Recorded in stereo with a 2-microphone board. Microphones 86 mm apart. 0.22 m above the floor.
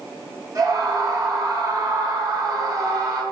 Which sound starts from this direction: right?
A scream, at 0.6 s.